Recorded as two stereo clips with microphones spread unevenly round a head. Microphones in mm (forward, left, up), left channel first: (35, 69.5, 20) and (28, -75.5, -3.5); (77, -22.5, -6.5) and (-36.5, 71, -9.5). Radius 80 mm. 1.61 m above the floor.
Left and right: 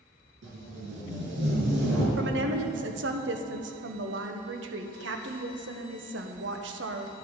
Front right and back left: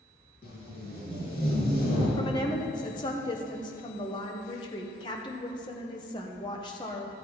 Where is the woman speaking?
105° right, 1.0 m.